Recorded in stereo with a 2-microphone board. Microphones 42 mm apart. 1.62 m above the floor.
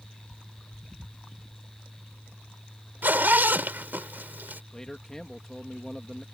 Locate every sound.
3.0 s a zipper: 55° right (ahead or behind)
4.7 s a man speaking: 15° left (ahead or behind)